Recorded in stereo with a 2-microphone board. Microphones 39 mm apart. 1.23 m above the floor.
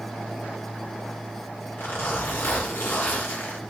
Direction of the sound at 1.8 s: 75° left (ahead or behind).